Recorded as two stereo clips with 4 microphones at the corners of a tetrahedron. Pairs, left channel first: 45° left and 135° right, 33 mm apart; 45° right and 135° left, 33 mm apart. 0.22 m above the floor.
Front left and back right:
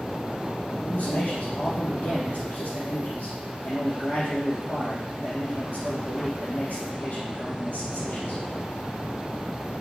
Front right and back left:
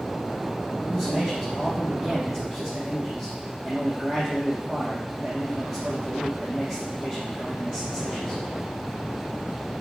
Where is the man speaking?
55° left, 4.5 m.